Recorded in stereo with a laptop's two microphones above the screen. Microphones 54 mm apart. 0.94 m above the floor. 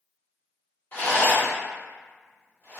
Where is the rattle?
35° left (ahead or behind), 1.3 m.